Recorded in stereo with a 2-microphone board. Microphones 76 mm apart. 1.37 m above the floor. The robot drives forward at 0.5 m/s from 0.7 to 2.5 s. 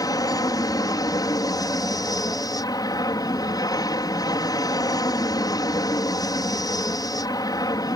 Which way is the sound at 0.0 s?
55° left (ahead or behind).